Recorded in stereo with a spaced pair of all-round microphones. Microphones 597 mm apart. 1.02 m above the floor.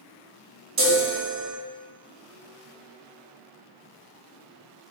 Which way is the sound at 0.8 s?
25° right (ahead or behind).